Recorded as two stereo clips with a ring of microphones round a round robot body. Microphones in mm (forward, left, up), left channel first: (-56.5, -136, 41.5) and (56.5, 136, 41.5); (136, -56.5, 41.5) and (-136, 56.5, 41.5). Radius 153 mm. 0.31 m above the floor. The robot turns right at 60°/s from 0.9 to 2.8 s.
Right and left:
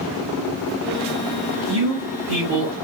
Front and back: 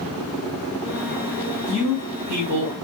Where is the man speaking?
65° left, 3 m; by 2.7 s 130° left, 3 m.